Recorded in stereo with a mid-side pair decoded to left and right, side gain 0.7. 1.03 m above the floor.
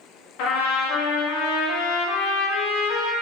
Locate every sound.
0.4 s a trumpet: 70° left, 1.1 m